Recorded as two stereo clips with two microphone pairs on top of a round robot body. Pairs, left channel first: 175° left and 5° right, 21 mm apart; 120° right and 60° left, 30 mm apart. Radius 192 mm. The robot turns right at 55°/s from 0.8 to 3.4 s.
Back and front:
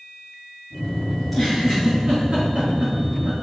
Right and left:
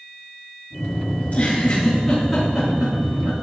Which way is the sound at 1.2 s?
95° right.